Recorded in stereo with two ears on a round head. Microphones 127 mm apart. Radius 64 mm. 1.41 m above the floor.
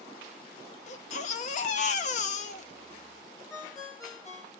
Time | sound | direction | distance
0.9 | a baby crying | 55° left (ahead or behind) | 0.7 m
3.5 | a ringtone | 25° left (ahead or behind) | 1.5 m